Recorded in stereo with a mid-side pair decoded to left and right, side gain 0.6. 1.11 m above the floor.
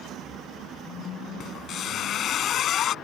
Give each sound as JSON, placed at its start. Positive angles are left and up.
{"t": 1.4, "sound": "a squeak", "azimuth_deg": 55}